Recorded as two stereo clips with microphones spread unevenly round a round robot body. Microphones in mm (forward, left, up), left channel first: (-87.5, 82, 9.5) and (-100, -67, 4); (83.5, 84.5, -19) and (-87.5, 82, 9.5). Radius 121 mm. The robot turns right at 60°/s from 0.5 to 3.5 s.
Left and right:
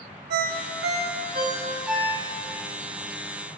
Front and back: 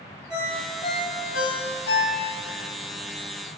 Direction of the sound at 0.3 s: 90° right.